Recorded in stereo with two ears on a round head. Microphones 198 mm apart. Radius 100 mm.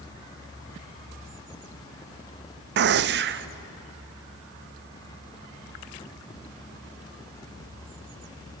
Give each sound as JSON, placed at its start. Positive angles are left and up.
{"t": 2.8, "sound": "a gunshot", "side_deg": -50, "distance_m": 0.5}